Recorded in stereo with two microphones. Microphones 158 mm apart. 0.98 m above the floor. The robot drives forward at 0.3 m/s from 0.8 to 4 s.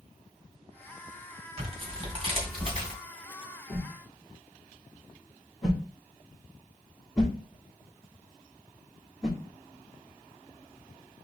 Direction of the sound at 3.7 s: 5° right (ahead or behind).